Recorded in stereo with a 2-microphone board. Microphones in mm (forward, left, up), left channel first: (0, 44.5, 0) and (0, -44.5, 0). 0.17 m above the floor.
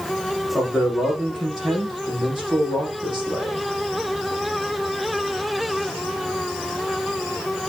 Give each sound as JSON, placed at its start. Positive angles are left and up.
{"t": 0.5, "sound": "a man speaking", "side_deg": 0, "distance_m": 5.5}